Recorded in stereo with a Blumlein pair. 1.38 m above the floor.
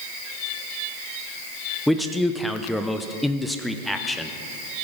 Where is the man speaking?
5° left, 0.6 m.